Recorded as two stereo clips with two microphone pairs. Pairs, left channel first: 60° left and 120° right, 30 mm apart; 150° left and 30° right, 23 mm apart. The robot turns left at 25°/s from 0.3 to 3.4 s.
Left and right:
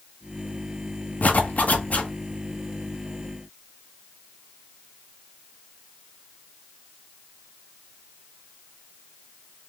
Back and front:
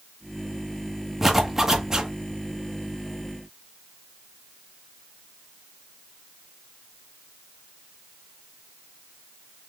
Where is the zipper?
55° left, 1.1 m; by 2.1 s 35° left, 1.1 m.